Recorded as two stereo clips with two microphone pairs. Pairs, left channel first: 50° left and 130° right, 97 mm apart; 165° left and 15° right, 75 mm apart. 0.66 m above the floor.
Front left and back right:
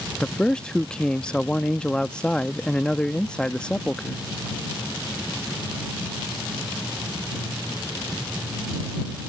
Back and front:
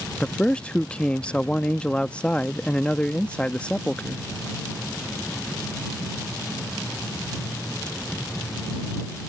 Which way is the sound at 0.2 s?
110° left.